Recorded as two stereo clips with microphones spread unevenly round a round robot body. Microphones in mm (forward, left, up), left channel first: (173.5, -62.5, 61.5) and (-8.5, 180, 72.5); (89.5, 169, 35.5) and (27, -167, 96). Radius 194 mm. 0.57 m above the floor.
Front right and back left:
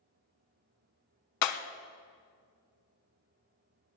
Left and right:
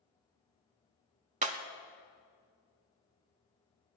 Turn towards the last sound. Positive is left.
turn(degrees=-35)